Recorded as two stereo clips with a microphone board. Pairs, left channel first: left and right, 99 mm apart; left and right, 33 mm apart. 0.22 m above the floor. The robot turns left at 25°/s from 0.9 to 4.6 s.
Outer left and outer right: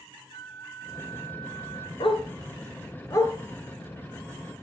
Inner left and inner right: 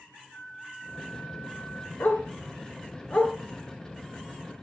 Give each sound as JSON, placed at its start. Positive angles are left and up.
{"t": 0.3, "sound": "a flute", "side_deg": 35, "distance_m": 2.5}
{"t": 2.0, "sound": "a dog barking", "side_deg": 60, "distance_m": 1.4}